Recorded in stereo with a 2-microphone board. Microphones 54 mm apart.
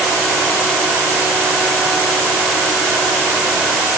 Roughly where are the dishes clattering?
No dishes clattering in this recording.